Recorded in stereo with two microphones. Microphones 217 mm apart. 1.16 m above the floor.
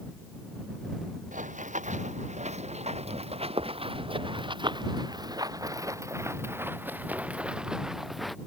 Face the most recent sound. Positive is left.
turn(degrees=0)  # may be behind; listen again after turning